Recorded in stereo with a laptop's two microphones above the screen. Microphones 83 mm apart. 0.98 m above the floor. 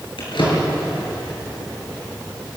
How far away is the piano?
No piano in this recording.